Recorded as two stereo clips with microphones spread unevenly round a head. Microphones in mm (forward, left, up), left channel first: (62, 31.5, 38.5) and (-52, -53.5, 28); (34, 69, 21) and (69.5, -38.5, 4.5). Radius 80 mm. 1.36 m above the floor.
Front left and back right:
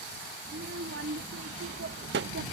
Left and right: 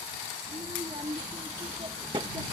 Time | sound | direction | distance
0.5 | a child speaking | 135° right | ?